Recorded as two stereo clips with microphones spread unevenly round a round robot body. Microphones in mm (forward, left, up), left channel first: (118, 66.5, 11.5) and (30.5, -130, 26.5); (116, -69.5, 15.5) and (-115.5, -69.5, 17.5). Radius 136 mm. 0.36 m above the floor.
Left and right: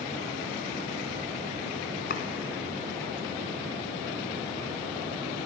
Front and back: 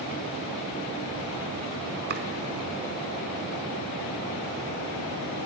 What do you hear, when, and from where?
2.1 s chopping: 125° left, 1.3 m